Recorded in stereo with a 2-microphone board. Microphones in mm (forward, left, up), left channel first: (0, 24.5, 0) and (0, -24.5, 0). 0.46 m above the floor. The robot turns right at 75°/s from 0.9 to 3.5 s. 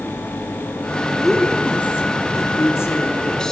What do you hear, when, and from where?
1.2 s a woman speaking: 5° right, 5.5 m; by 3.5 s 170° left, 5.5 m